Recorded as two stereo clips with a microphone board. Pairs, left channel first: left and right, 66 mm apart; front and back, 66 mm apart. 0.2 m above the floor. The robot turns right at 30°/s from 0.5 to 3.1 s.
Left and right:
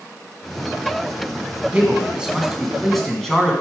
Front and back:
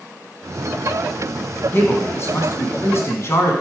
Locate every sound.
1.7 s a man speaking: 35° right, 2 m; by 3.5 s 10° left, 2 m